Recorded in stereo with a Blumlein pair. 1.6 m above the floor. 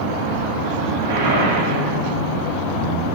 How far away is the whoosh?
About 7 m.